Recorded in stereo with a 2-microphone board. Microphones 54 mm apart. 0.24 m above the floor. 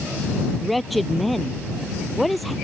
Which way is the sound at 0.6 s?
Centre (ahead or behind).